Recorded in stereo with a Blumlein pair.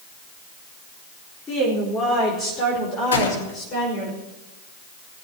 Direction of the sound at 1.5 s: 15° left.